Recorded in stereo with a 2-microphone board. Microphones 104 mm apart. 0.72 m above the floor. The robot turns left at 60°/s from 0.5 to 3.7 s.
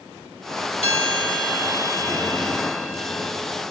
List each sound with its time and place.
0.8 s a bell: 95° left, 1.2 m; by 3.3 s 55° right, 1.2 m